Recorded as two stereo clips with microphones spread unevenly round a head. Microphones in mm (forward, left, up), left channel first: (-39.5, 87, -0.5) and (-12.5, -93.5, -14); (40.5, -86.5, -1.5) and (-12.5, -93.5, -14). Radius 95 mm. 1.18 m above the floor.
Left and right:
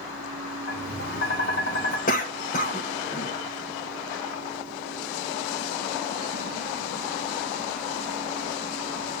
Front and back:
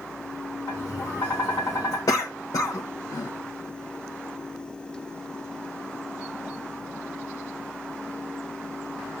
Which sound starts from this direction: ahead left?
A cough, at 2.1 s.